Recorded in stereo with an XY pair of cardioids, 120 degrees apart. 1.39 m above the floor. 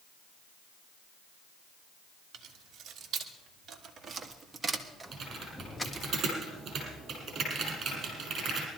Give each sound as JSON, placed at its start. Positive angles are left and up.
{"t": 2.3, "sound": "keys jangling", "azimuth_deg": -60, "distance_m": 2.5}
{"t": 5.1, "sound": "typing on a keyboard", "azimuth_deg": -45, "distance_m": 6.0}